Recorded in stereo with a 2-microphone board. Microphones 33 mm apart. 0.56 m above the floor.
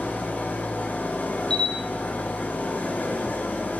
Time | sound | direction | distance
0.0 | an engine running | 60° left (ahead or behind) | 3.5 m
1.5 | a camera shutter | 25° left (ahead or behind) | 1.5 m